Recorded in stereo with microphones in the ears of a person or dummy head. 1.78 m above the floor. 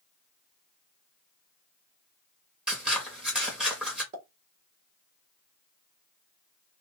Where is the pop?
40° right (ahead or behind), 1.5 m.